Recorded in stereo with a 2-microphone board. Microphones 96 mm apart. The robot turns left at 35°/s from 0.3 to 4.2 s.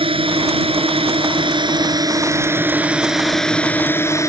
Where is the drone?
75° right; by 4.3 s 145° left.